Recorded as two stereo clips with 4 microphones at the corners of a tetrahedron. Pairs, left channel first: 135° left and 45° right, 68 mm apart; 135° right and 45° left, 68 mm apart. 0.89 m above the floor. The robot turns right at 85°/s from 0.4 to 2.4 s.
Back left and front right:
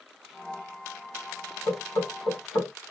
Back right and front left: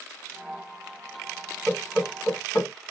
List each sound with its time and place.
1.7 s knocking: 125° left, 1.2 m; by 2.7 s 175° right, 1.2 m